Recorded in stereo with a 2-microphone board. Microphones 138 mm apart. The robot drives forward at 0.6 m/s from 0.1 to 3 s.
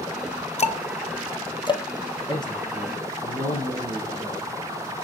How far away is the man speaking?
About 6 m.